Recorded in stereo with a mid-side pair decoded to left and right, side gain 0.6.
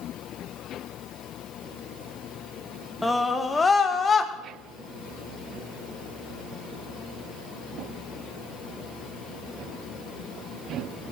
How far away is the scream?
About 1.7 m.